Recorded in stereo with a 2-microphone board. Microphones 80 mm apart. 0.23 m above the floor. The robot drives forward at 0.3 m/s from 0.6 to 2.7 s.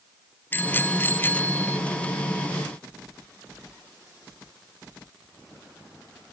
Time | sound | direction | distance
0.5 | a bicycle bell | 25° left (ahead or behind) | ?